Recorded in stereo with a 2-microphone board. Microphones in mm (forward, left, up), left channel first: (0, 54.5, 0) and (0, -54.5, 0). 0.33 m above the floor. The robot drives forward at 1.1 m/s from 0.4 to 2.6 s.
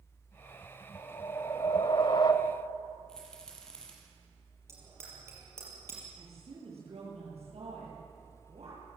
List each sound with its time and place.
0.9 s a whoosh: 25° left (ahead or behind), 1.5 m; by 2.8 s 35° left (ahead or behind), 1.2 m
3.1 s a rattle: 5° left (ahead or behind), 6.5 m
4.7 s a bicycle bell: 25° right (ahead or behind), 6 m
6.2 s a woman speaking: 65° right (ahead or behind), 9.5 m